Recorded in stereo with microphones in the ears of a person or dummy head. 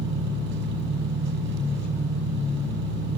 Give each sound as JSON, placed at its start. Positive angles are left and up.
{"t": 0.0, "sound": "an engine running", "side_deg": -70, "distance_m": 5.5}